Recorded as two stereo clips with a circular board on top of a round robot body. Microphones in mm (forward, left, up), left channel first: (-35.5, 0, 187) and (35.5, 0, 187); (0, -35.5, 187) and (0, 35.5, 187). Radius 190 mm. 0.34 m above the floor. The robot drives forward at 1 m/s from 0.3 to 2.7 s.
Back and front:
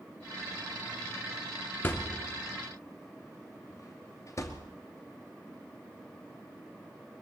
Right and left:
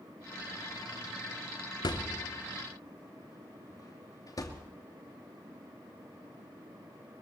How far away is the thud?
About 2 m.